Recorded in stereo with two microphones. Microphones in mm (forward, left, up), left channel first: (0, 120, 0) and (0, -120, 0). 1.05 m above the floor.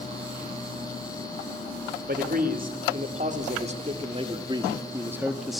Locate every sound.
2.1 s a man speaking: 40° right (ahead or behind), 2.5 m; by 5.6 s centre (ahead or behind), 1.3 m